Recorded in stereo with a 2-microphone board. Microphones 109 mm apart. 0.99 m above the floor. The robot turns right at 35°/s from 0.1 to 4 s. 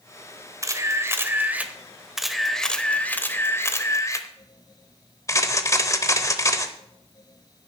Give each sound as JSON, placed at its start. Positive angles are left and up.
{"t": 0.6, "sound": "a camera shutter", "azimuth_deg": -60, "distance_m": 0.8}